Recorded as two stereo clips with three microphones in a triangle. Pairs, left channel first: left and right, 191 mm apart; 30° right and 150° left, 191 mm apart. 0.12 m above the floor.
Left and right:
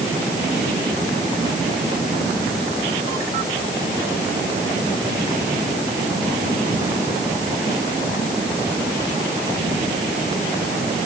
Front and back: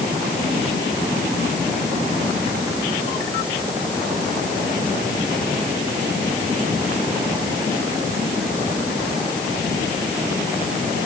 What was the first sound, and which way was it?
Only background noise.